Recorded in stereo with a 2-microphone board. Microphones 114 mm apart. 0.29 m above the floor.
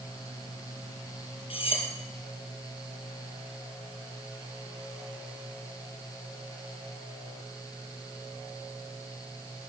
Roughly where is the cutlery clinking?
Left.